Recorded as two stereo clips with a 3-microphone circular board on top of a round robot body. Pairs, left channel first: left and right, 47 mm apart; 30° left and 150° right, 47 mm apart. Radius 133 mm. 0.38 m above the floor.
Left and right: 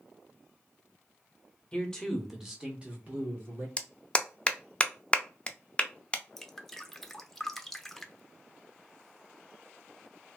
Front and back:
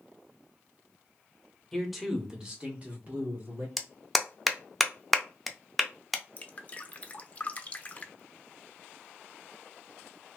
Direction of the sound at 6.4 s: 15° left.